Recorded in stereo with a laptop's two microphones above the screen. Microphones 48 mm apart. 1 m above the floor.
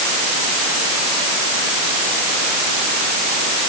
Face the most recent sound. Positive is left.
No sound to turn to.